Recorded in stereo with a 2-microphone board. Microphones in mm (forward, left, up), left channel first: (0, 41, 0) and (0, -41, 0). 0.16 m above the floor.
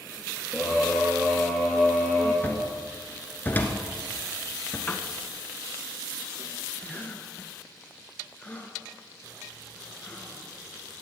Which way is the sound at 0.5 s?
Centre (ahead or behind).